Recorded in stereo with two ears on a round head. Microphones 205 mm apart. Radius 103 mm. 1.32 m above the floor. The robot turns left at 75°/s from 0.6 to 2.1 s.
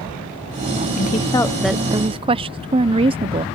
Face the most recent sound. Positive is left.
turn(degrees=-35)